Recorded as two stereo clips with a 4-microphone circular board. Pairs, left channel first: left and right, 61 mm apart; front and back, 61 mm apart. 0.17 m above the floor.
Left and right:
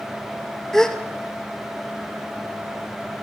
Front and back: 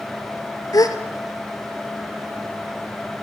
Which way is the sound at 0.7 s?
10° left.